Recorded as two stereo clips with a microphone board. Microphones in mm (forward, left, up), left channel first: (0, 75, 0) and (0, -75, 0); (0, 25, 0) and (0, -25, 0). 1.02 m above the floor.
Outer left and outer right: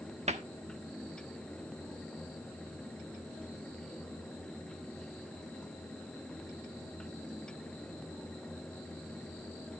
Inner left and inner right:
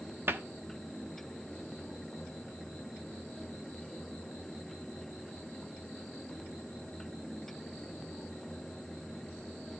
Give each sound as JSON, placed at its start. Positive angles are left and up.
{"t": 0.3, "sound": "a cupboard door", "side_deg": -50, "distance_m": 1.1}